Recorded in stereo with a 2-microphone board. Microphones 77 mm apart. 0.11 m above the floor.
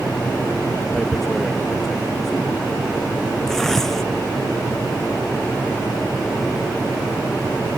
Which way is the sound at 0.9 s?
5° left (ahead or behind).